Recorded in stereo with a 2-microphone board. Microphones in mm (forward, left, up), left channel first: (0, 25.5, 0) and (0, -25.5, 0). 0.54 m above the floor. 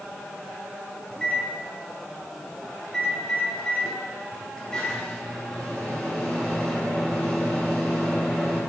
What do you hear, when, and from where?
1.1 s a microwave: 15° left (ahead or behind), 3 m